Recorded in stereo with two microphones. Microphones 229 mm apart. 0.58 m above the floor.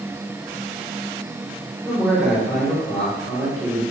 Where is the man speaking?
5° left (ahead or behind), 1.3 m.